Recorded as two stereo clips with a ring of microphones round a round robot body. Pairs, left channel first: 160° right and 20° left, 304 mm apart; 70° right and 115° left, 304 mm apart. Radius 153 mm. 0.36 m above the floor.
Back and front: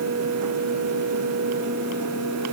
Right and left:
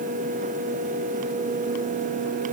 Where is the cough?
No cough in this recording.